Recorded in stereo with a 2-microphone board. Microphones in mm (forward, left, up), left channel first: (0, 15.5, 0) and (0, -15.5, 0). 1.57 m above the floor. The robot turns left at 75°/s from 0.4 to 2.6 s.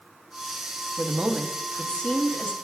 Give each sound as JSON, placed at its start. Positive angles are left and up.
{"t": 1.0, "sound": "a woman speaking", "azimuth_deg": -145, "distance_m": 0.8}